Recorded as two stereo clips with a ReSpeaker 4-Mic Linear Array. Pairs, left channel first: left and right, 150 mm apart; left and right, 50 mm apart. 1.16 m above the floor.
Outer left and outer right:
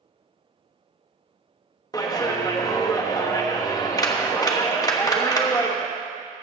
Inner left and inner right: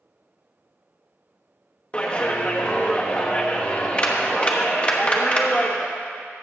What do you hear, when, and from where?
1.9 s a clap: 25° left (ahead or behind), 1.1 m